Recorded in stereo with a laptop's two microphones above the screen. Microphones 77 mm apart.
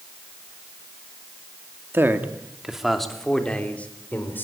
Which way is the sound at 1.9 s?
30° right (ahead or behind).